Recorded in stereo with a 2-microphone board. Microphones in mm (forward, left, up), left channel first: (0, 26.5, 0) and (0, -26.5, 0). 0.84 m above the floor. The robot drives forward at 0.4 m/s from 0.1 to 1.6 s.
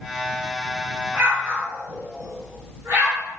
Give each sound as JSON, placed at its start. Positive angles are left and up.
{"t": 1.1, "sound": "an explosion", "side_deg": -40, "distance_m": 1.0}